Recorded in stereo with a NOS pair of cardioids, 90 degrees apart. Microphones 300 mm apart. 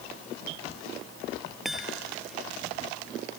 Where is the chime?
Straight ahead.